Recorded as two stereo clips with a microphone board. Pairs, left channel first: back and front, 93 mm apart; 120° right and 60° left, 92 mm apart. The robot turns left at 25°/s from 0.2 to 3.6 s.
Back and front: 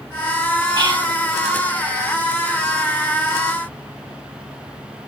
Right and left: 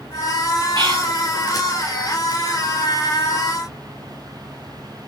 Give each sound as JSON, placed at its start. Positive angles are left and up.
{"t": 0.8, "sound": "whispering", "azimuth_deg": 30, "distance_m": 2.5}